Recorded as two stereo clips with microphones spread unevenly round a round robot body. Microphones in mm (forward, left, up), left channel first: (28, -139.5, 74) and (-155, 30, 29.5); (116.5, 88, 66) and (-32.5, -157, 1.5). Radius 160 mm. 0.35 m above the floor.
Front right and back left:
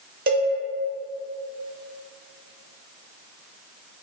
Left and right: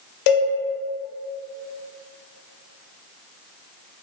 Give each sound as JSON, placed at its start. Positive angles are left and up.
{"t": 0.3, "sound": "a cowbell", "azimuth_deg": 85, "distance_m": 0.8}